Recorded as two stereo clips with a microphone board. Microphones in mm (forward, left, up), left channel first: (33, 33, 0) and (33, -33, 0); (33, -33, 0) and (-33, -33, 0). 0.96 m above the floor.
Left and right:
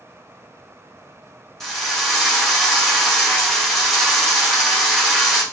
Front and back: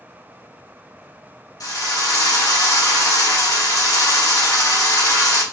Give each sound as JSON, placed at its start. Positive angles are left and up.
{"t": 1.6, "sound": "a drill", "azimuth_deg": 5, "distance_m": 1.6}